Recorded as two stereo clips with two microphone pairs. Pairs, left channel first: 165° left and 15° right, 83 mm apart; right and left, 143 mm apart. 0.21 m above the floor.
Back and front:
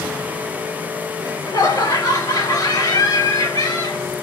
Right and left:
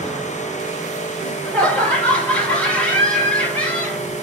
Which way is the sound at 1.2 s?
165° right.